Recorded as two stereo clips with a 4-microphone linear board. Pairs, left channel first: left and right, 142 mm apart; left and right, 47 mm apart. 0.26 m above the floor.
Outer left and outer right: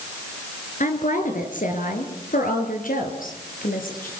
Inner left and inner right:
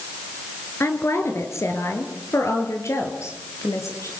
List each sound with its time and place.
0.8 s a woman speaking: 65° left (ahead or behind), 4 m; by 4.1 s 80° left, 5.5 m